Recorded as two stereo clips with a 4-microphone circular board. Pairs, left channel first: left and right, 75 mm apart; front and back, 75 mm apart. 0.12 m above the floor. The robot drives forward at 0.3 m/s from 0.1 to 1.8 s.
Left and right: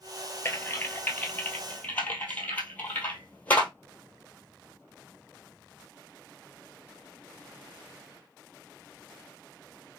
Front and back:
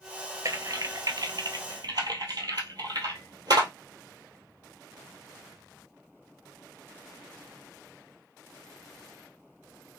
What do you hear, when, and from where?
0.5 s typing on a keyboard: 140° left, 0.7 m; by 3.7 s 155° left, 1.0 m